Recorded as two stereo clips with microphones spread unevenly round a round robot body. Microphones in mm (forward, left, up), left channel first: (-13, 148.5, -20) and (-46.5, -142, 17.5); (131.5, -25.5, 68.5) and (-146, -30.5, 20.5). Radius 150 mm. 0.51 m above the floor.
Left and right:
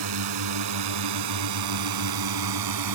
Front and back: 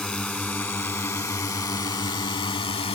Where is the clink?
I don't hear a clink.